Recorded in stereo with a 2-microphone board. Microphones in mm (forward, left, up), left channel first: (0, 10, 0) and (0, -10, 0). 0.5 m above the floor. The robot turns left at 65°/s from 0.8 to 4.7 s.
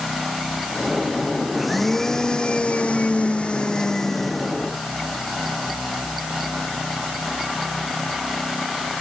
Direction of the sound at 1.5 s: 175° right.